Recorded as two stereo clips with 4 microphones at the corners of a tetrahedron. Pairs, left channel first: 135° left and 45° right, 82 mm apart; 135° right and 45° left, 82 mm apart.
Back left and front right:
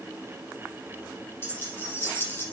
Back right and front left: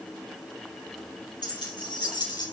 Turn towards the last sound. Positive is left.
turn(degrees=-160)